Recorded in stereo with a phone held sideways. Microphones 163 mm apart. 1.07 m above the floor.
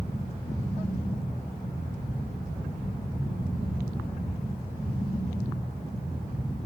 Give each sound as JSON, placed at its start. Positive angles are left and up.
{"t": 0.0, "sound": "a fan", "side_deg": -35, "distance_m": 2.0}